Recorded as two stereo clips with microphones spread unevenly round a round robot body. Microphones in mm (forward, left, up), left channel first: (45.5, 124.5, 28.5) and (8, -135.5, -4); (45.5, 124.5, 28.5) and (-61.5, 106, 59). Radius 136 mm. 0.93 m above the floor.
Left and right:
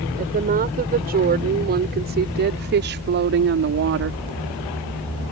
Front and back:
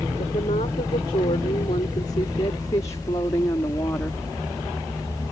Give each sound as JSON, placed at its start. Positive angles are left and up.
{"t": 0.2, "sound": "a woman speaking", "azimuth_deg": -40}